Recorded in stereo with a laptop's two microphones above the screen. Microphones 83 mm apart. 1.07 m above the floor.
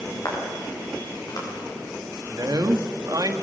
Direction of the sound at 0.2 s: 50° left (ahead or behind).